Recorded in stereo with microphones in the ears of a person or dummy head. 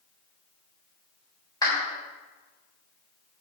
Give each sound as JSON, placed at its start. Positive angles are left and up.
{"t": 1.6, "sound": "a clap", "side_deg": 25, "distance_m": 4.0}